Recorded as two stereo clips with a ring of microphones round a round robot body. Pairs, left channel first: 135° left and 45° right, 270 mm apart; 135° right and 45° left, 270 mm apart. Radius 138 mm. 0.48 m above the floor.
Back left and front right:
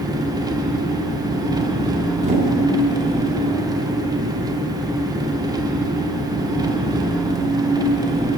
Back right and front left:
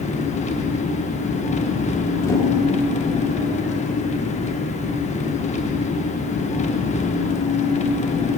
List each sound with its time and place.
0.0 s an engine running: 105° right, 0.7 m
2.2 s a whoosh: 70° right, 1.4 m